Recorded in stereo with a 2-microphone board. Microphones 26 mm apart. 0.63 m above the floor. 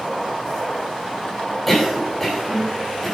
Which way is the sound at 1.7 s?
5° left (ahead or behind).